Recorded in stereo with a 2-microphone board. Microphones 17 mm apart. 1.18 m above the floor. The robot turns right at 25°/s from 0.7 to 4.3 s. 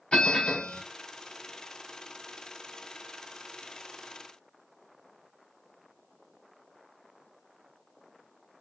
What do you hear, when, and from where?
0.1 s a bell: 70° left (ahead or behind), 3.5 m; by 0.8 s 75° left (ahead or behind), 3.5 m